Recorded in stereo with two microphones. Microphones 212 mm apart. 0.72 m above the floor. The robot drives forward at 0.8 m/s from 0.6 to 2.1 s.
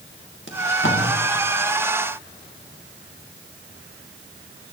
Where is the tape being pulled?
65° left (ahead or behind), 1.8 m; by 1.0 s 60° left (ahead or behind), 1.9 m.